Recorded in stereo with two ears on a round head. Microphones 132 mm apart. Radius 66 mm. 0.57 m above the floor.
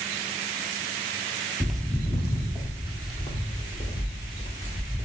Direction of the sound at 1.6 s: 5° right (ahead or behind).